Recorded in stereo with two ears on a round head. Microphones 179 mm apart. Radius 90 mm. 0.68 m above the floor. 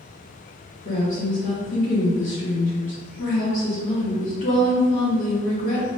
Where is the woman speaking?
40° left (ahead or behind), 1.4 m.